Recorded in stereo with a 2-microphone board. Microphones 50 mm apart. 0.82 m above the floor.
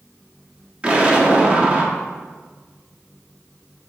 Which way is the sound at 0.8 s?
25° right (ahead or behind).